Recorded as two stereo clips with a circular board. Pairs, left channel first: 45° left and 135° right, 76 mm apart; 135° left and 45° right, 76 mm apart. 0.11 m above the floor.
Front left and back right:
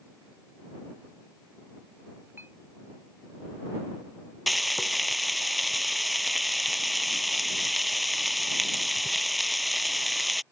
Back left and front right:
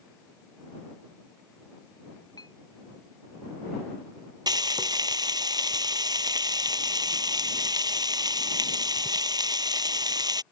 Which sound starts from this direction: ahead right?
Frying, at 4.5 s.